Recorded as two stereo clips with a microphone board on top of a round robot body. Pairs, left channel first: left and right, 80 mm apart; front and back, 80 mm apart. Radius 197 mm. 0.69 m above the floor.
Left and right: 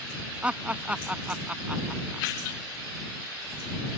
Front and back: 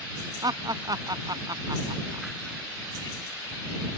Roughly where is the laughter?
Behind.